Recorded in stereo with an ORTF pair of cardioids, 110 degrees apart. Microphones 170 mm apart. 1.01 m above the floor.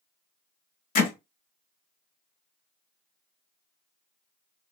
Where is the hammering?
55° left, 1.1 m.